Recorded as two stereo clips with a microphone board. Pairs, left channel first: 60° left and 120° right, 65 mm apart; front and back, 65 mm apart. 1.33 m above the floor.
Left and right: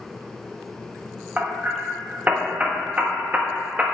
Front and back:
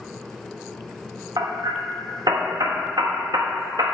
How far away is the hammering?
About 1.3 m.